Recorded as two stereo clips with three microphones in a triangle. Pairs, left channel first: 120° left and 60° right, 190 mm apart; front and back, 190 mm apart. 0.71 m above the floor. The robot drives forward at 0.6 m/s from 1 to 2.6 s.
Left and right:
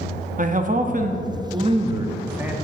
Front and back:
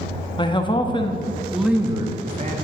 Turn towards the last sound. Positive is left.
turn(degrees=-145)